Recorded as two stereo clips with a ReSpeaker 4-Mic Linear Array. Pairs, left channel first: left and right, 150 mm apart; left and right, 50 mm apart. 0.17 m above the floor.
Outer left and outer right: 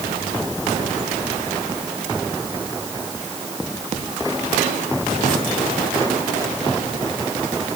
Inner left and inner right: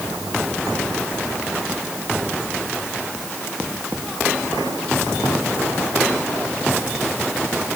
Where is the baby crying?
No baby crying in this recording.